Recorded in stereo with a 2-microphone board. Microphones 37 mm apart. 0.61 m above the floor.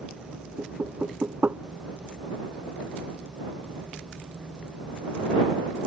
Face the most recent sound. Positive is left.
turn(degrees=-50)  # may be behind; listen again after turning